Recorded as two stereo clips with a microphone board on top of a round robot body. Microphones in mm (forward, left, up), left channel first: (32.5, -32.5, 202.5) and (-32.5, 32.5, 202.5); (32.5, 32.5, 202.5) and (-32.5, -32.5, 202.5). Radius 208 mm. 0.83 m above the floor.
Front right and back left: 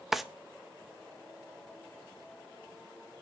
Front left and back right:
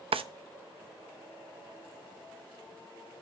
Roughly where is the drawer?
Behind right.